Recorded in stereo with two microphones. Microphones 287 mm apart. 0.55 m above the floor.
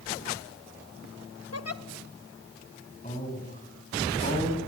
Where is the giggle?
55° left (ahead or behind), 0.7 m.